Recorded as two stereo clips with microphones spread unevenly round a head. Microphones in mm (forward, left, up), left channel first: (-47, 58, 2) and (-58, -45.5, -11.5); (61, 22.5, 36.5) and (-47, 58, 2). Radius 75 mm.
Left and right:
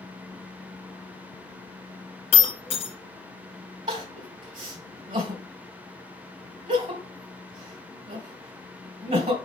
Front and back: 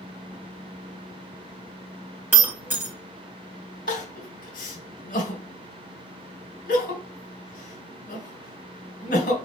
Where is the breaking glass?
85° left, 2.5 m.